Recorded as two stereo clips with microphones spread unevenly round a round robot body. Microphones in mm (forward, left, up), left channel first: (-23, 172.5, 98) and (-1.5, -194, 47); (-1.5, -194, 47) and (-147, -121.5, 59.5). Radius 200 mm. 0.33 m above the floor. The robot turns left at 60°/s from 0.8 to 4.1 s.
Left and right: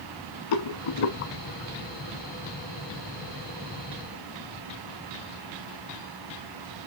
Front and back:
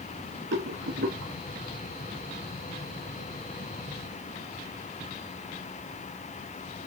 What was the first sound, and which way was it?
A rattle, 125° left.